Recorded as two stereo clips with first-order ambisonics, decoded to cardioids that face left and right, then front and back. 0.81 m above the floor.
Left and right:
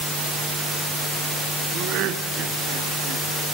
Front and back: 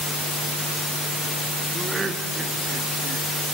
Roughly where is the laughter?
Right.